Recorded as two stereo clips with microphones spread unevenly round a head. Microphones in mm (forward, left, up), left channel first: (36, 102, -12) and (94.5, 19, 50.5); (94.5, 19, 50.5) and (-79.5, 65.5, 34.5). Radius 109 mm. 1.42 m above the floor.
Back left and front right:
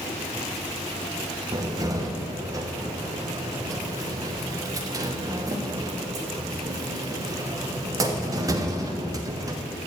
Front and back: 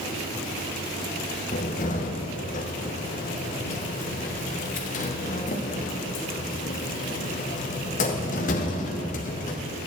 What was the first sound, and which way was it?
A cupboard door, 65° right.